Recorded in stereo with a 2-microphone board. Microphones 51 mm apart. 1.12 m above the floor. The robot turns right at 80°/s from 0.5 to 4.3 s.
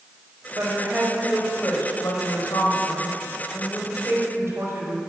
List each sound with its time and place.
0.6 s a woman speaking: 60° right, 4.5 m; by 5.1 s 120° right, 4.5 m